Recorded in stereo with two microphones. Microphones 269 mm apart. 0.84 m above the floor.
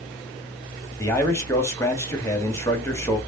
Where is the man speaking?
10° left (ahead or behind), 1.5 m.